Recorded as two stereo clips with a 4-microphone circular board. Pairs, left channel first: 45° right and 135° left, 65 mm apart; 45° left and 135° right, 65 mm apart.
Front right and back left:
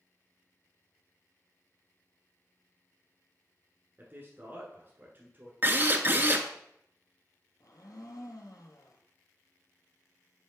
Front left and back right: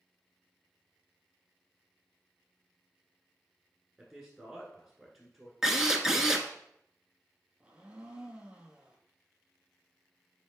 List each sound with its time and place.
4.0 s a man speaking: 145° left, 1.4 m
5.6 s a drill: 145° left, 0.8 m
7.6 s a blender: 65° right, 1.2 m